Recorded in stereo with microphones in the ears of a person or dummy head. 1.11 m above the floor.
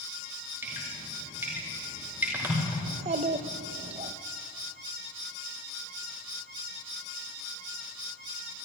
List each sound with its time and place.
0.6 s dripping: 15° right (ahead or behind), 4.5 m
2.9 s a child speaking: 35° right (ahead or behind), 0.6 m